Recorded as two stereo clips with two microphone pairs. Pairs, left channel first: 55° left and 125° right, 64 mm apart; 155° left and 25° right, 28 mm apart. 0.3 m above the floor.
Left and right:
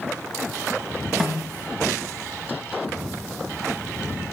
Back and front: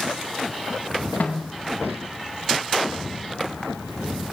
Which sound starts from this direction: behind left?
A snare drum, at 1.2 s.